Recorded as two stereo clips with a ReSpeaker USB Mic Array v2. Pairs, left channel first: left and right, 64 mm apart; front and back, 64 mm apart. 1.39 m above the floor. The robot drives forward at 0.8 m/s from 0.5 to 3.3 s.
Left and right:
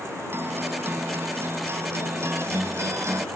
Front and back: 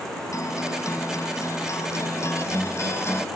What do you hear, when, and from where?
0.3 s a guitar: 35° right; by 3.3 s 45° right